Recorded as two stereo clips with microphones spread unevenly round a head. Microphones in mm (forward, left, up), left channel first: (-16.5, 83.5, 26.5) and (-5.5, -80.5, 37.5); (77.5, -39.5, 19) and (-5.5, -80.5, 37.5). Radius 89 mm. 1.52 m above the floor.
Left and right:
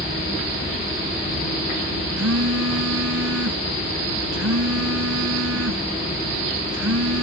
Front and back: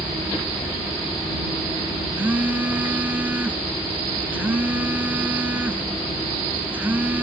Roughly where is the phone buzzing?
Right.